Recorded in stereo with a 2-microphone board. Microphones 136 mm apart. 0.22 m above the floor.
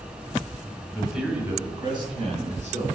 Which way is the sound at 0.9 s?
5° left (ahead or behind).